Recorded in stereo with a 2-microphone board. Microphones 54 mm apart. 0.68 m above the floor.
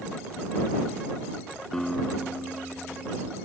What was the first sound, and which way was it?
A guitar, 10° left (ahead or behind).